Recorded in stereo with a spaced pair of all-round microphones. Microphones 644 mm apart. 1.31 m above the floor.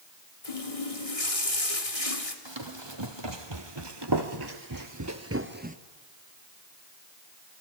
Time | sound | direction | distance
0.4 | a running tap | 60° left (ahead or behind) | 2.5 m
2.5 | running footsteps | 40° right (ahead or behind) | 2.5 m